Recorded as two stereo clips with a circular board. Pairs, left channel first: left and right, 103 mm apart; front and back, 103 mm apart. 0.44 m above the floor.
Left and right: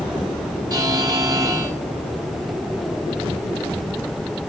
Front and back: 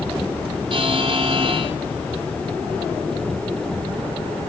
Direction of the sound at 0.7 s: 145° right.